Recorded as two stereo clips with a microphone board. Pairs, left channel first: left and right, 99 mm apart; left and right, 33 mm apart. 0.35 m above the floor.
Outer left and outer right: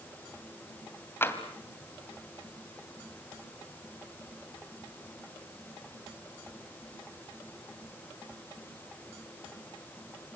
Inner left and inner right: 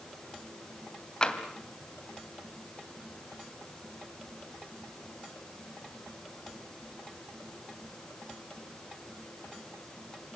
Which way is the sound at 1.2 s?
25° left (ahead or behind).